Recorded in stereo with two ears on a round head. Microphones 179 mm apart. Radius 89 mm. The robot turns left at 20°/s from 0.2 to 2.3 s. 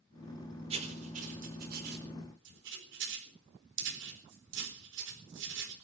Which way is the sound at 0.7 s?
30° right (ahead or behind).